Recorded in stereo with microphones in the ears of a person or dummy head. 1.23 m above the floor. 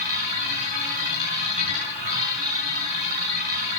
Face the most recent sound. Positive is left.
turn(degrees=-40)  # may be behind; listen again after turning